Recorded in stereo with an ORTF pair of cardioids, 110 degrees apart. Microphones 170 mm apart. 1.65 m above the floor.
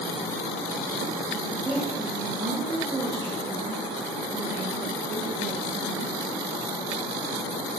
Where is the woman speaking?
10° right, 4.5 m; by 6.1 s 55° right, 6 m.